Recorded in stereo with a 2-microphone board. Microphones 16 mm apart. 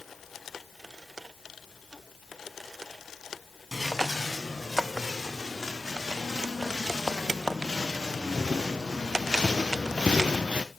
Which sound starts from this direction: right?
Footsteps, at 3.7 s.